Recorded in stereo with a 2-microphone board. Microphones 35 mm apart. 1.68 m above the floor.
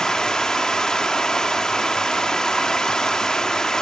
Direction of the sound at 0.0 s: 20° left (ahead or behind).